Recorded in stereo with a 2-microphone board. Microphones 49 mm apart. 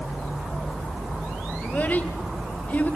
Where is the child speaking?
35° left (ahead or behind), 2 m.